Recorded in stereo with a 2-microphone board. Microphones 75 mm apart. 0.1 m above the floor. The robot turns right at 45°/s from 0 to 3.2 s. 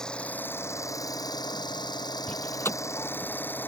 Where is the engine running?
10° left; by 3.7 s 150° left.